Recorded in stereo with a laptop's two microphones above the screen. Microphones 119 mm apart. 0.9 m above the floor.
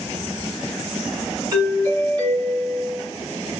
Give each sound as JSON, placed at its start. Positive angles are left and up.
{"t": 1.5, "sound": "a doorbell", "side_deg": -30, "distance_m": 1.8}